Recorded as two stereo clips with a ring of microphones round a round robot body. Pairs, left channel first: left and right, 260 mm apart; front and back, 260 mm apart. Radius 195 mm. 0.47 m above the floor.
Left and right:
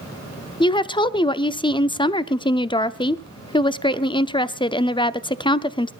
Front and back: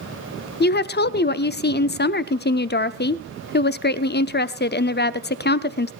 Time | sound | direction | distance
0.6 | a woman speaking | 25° left | 0.9 m